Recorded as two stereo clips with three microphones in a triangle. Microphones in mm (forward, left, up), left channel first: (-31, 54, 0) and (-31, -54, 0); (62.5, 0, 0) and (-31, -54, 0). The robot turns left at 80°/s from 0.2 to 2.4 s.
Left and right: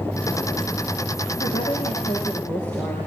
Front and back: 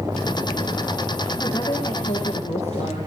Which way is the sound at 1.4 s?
100° left.